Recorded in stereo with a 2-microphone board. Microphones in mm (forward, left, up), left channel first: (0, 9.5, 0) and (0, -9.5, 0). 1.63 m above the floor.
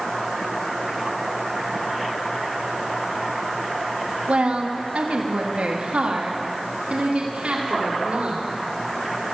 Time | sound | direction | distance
4.3 | a woman speaking | 85° right | 2.5 m